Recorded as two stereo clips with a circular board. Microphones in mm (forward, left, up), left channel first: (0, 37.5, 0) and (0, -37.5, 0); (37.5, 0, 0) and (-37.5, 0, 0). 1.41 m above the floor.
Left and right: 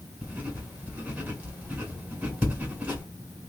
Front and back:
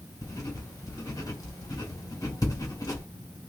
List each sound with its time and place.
0.2 s writing: 25° right, 2 m